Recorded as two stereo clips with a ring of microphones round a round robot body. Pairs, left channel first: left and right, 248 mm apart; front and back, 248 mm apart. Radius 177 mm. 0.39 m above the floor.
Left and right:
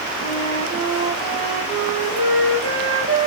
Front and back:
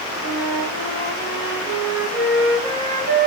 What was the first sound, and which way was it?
A flute, 160° right.